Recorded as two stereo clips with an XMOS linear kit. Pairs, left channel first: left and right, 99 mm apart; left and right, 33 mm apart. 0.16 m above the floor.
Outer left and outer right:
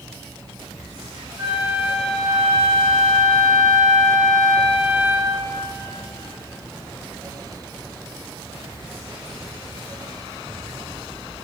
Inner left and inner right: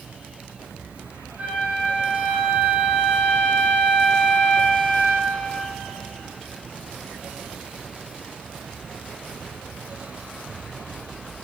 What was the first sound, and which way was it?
A flute, 40° right (ahead or behind).